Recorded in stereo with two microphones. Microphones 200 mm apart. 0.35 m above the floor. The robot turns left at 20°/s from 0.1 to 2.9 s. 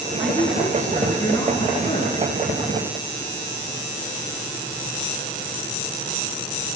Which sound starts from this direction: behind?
A woman speaking, at 0.2 s.